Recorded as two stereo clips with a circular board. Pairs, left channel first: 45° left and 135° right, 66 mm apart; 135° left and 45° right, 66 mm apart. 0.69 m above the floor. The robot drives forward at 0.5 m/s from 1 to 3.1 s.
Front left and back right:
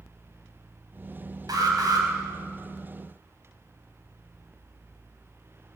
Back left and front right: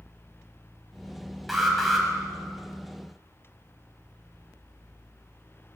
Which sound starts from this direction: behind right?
An alarm, at 1.5 s.